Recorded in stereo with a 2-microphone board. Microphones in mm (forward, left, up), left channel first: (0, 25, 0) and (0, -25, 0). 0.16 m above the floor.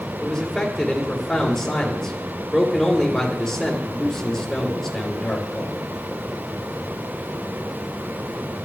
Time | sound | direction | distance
0.2 | a man speaking | 10° left (ahead or behind) | 3.5 m